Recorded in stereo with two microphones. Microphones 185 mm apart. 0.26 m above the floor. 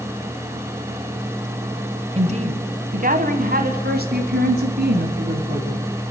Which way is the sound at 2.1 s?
35° right (ahead or behind).